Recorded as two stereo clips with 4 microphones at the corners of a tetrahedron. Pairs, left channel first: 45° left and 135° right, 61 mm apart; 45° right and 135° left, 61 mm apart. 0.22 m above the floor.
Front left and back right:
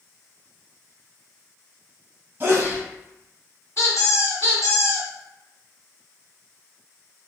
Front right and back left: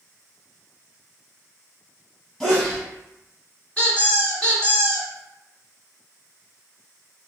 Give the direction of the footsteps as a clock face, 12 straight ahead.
I don't hear footsteps.